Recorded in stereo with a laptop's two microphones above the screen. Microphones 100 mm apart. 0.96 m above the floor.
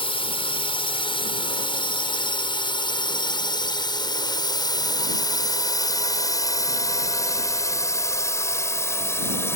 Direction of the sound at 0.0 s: 65° left (ahead or behind).